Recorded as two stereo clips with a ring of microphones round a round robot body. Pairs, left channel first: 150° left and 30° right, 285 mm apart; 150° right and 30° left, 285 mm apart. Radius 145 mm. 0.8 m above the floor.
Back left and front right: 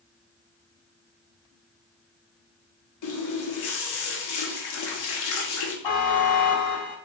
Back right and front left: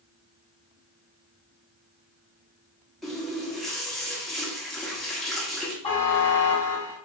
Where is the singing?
I don't hear singing.